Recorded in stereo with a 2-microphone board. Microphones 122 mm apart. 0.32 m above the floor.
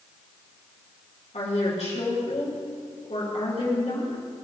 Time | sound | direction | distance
1.3 | a woman speaking | 65° left (ahead or behind) | 3.5 m